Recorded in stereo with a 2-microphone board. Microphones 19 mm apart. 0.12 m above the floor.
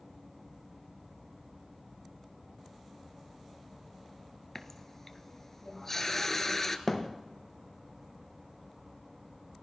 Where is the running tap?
20° left (ahead or behind), 1.1 m.